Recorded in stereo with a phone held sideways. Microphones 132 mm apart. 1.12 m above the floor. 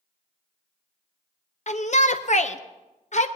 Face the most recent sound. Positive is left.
turn(degrees=60)  # may be behind; listen again after turning